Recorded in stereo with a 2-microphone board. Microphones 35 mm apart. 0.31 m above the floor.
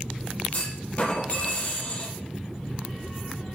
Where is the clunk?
40° left (ahead or behind), 5.5 m.